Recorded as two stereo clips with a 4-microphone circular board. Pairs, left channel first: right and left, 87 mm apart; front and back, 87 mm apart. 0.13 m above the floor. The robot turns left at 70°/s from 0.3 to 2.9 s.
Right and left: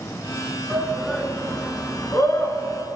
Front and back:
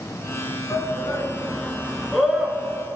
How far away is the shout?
About 1.6 m.